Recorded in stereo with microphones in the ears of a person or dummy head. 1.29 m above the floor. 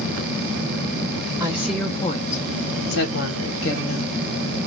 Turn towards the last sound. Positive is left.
turn(degrees=75)  # may be behind; listen again after turning